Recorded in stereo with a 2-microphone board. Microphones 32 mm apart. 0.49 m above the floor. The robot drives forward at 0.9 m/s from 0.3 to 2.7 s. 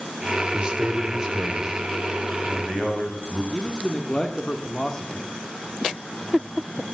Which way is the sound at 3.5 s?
15° left (ahead or behind).